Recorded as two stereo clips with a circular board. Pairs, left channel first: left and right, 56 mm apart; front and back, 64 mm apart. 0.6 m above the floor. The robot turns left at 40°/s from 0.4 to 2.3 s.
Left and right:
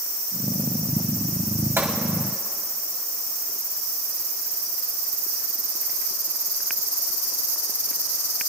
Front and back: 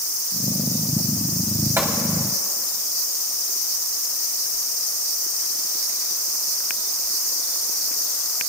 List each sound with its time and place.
1.8 s a gunshot: 130° right, 2.5 m; by 2.0 s 135° right, 2.5 m